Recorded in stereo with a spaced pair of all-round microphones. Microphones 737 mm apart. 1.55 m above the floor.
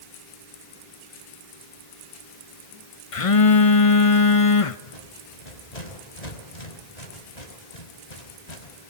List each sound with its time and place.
3.1 s a phone buzzing: 45° left (ahead or behind), 1.0 m
4.9 s a rattle: 60° left (ahead or behind), 4.5 m